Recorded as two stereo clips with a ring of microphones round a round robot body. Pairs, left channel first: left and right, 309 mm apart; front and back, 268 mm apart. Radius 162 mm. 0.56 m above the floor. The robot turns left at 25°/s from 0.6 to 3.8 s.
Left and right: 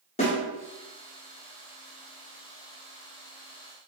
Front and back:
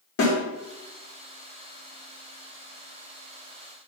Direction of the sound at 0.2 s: 20° left.